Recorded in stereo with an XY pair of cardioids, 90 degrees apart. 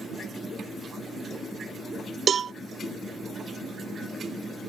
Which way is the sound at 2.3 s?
55° right.